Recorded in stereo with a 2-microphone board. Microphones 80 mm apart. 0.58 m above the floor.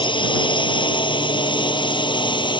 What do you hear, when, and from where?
0.0 s a drone: 75° left (ahead or behind); by 2.6 s 70° left (ahead or behind)